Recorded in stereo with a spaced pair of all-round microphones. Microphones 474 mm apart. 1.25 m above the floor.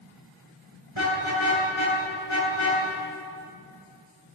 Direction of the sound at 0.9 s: 80° right.